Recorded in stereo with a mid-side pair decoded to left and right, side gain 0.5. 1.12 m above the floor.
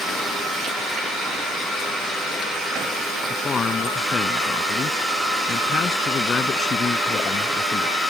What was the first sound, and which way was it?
A man speaking, 40° left.